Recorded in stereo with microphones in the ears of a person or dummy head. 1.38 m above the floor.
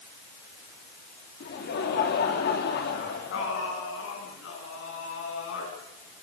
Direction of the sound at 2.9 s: 75° left (ahead or behind).